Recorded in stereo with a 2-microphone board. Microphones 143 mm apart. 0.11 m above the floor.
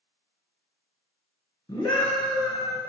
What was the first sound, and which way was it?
A scream, 20° left (ahead or behind).